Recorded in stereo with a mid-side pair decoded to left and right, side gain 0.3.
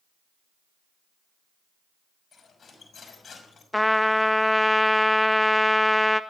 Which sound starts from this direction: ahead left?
Cutlery clinking, at 2.3 s.